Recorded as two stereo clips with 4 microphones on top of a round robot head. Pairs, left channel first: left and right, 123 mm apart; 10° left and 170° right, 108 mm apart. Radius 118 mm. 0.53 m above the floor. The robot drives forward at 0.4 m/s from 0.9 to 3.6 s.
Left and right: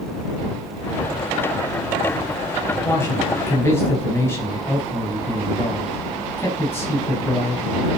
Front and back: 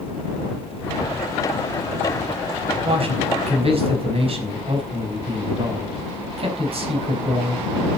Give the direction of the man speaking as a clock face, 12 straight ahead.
7 o'clock.